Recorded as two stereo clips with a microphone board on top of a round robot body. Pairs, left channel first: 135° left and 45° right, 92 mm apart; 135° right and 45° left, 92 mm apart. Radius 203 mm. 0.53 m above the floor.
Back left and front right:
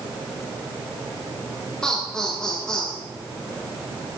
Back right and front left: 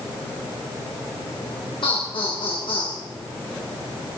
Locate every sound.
1.8 s laughter: 145° right, 4.5 m